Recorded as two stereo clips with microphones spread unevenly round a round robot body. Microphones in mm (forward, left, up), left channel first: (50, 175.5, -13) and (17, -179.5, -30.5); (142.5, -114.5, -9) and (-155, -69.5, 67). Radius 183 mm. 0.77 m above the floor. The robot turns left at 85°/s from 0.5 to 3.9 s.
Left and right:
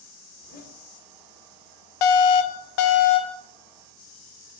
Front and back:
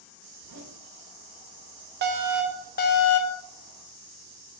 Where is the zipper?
145° left, 1.9 m; by 0.8 s 120° left, 1.9 m.